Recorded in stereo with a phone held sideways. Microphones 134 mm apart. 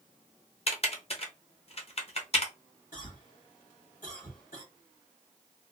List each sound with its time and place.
0.7 s typing on a keyboard: 45° left (ahead or behind), 0.8 m
2.9 s a cough: 75° left (ahead or behind), 1.7 m